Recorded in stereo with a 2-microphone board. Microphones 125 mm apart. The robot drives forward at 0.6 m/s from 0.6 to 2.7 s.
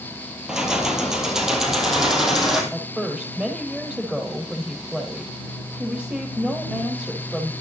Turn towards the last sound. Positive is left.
turn(degrees=-5)  # may be behind; listen again after turning